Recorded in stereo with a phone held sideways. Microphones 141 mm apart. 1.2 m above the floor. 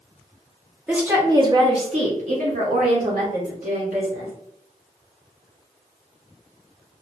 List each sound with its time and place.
0.9 s a woman speaking: 5° right (ahead or behind), 0.8 m; by 4.3 s 80° right, 2.5 m